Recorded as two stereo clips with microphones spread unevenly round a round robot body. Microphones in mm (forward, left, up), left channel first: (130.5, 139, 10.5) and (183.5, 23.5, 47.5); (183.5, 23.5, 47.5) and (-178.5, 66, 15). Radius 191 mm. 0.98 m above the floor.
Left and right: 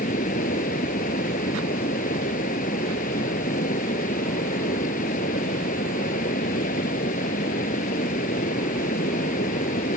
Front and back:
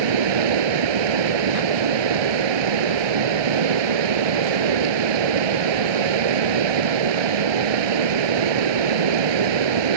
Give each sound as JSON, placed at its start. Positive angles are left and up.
{"t": 0.0, "sound": "running water", "azimuth_deg": 165}